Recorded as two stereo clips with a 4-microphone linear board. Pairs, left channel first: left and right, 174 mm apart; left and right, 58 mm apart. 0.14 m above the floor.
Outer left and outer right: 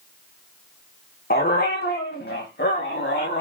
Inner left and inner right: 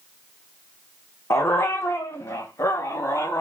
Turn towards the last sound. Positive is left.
turn(degrees=80)